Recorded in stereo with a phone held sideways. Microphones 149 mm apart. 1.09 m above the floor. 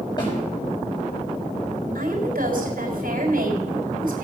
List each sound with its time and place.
0.2 s a snare drum: 30° left (ahead or behind), 6.5 m
1.9 s a woman speaking: 70° right (ahead or behind), 4 m